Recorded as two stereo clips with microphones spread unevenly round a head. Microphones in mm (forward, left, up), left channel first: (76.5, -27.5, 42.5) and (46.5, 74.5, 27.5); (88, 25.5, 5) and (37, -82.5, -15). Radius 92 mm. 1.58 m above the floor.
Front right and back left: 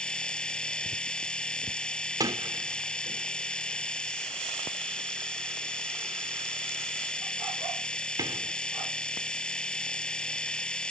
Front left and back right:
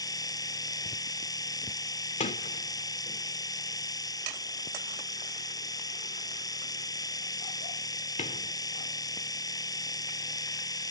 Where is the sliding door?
50° left.